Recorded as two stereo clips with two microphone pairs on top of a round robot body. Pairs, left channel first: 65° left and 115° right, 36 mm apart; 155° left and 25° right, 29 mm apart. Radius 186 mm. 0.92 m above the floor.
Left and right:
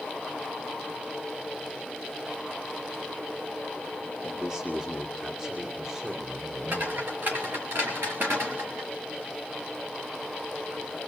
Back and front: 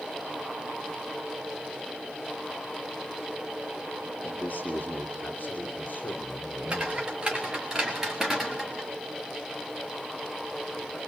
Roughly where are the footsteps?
Right.